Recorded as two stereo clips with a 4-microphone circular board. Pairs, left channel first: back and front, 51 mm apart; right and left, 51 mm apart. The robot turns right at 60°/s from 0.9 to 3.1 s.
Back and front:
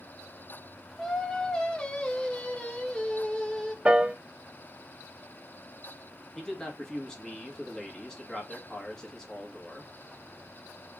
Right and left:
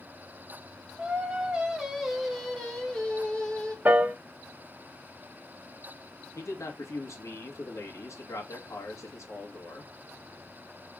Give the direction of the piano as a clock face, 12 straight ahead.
10 o'clock.